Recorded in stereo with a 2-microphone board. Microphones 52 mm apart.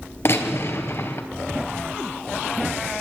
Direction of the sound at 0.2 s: 55° left (ahead or behind).